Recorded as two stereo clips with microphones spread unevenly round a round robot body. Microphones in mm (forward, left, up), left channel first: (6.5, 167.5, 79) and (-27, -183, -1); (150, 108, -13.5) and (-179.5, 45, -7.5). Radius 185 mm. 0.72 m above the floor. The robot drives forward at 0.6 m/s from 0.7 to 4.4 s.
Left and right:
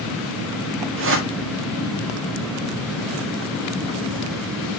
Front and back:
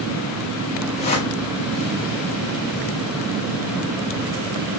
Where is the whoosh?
55° right, 1.7 m; by 1.3 s 65° right, 1.6 m.